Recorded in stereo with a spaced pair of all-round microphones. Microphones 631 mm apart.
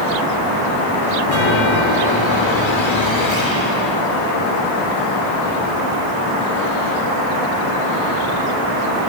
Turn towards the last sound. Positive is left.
turn(degrees=45)  # may be behind; listen again after turning